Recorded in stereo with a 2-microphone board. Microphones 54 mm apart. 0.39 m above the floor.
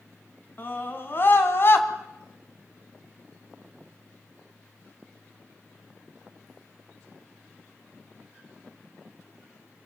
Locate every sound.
0.6 s a scream: 40° left (ahead or behind), 3.5 m; by 1.9 s 50° left (ahead or behind), 2.5 m